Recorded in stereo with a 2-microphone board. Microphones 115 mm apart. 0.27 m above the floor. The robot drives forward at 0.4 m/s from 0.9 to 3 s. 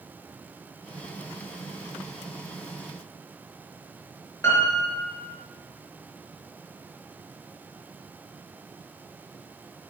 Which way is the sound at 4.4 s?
25° left (ahead or behind).